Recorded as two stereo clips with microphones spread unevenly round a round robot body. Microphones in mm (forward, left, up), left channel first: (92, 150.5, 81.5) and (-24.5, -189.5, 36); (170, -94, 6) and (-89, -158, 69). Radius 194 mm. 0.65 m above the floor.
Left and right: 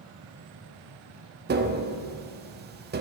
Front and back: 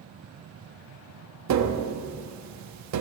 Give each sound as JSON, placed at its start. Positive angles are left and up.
{"t": 1.5, "sound": "tapping", "azimuth_deg": -160, "distance_m": 0.9}